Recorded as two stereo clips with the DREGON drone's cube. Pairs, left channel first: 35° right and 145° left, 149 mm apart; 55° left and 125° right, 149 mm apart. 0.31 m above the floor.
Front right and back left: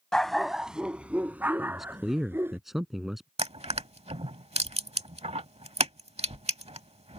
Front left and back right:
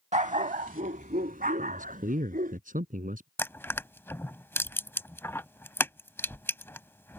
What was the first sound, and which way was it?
A dog barking, 120° right.